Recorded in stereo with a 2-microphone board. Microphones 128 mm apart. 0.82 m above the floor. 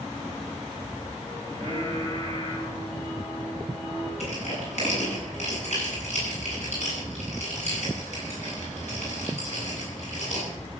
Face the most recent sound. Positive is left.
turn(degrees=60)  # may be behind; listen again after turning